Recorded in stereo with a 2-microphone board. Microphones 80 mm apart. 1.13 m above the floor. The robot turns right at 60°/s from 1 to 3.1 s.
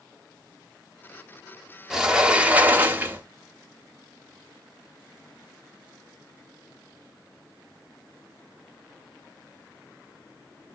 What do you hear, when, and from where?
1.9 s a sliding door: 5° right (ahead or behind), 0.7 m; by 3.3 s 25° right (ahead or behind), 0.7 m